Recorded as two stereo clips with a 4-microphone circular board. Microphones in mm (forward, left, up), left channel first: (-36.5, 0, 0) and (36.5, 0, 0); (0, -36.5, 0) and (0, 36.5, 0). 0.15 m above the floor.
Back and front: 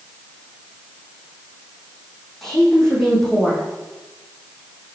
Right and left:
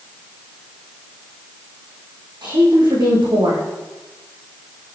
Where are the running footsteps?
I don't hear running footsteps.